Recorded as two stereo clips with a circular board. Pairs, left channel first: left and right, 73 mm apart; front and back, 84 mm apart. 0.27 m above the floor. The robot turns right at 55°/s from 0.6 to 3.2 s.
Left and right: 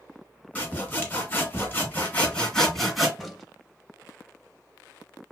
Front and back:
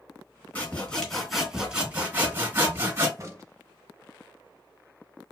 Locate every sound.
0.6 s sawing: 50° left, 1.2 m; by 3.1 s 175° right, 1.2 m
3.2 s a crack: 175° left, 0.6 m